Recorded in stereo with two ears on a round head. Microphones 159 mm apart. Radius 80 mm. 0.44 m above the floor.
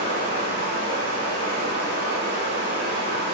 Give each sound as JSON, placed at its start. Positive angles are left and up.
{"t": 0.0, "sound": "running water", "side_deg": -65, "distance_m": 3.0}